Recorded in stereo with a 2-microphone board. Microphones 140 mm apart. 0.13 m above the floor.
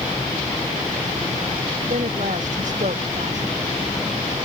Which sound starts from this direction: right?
A woman speaking, at 1.9 s.